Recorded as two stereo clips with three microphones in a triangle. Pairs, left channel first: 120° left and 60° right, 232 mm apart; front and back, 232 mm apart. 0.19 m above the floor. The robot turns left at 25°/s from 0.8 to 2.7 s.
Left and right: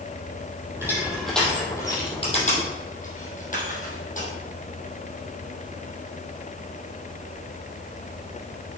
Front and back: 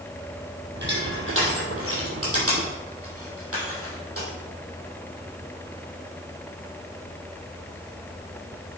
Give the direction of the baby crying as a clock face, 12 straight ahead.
No baby crying in this recording.